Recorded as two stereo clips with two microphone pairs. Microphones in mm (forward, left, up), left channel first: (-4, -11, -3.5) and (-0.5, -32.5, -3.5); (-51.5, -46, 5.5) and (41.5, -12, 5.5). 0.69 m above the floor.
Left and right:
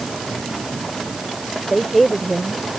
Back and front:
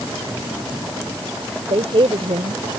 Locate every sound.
1.7 s a woman speaking: 15° left